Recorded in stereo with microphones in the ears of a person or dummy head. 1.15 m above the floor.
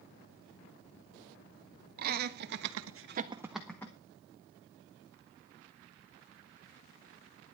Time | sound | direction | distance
2.0 | laughter | 45° right (ahead or behind) | 1.7 m